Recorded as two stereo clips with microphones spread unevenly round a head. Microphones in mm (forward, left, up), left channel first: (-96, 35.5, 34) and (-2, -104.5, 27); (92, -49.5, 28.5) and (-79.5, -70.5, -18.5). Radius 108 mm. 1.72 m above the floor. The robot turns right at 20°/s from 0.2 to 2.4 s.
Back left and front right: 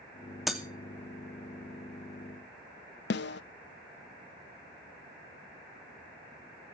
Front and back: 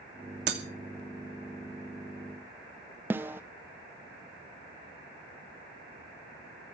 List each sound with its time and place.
0.5 s breaking glass: 145° right, 2.5 m
3.1 s a snare drum: 100° left, 0.5 m